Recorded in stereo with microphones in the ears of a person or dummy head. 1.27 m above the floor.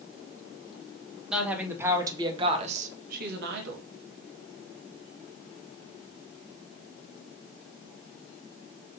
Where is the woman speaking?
5° right (ahead or behind), 2 m; by 3.8 s 75° right (ahead or behind), 1.7 m.